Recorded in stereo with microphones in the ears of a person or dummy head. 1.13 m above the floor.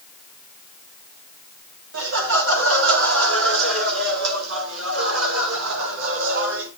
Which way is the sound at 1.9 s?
75° right (ahead or behind).